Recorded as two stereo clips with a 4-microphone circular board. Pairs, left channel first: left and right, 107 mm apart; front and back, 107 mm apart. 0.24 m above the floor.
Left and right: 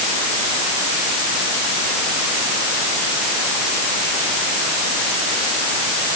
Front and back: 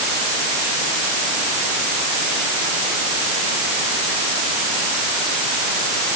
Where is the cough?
No cough in this recording.